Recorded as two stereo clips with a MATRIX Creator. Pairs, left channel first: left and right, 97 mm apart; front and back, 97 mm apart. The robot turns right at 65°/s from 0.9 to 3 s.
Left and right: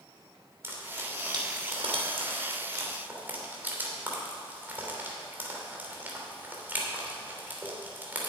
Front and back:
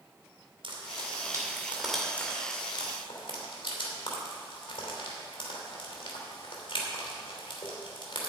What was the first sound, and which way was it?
Frying, 155° right.